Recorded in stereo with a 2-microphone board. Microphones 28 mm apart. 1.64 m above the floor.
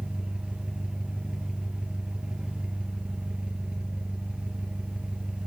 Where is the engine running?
35° right (ahead or behind), 1.2 m.